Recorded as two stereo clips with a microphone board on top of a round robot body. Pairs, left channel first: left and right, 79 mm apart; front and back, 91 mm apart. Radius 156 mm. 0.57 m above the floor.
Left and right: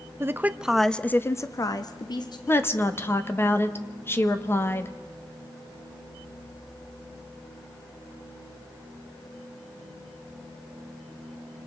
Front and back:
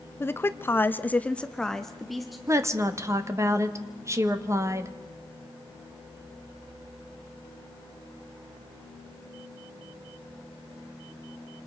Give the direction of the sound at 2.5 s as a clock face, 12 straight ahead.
7 o'clock.